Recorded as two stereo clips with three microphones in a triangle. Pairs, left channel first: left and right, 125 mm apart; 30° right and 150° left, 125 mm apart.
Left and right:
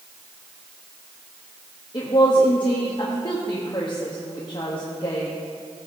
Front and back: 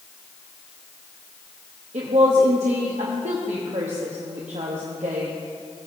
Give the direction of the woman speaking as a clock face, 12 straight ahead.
7 o'clock.